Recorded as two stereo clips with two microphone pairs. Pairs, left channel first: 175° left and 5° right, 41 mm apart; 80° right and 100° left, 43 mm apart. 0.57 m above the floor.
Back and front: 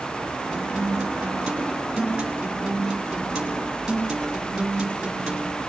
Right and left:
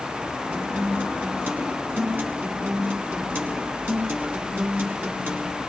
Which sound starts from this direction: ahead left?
A guitar, at 0.5 s.